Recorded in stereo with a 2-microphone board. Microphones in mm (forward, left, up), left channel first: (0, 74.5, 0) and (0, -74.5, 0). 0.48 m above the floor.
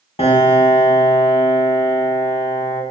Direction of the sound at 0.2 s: 45° left (ahead or behind).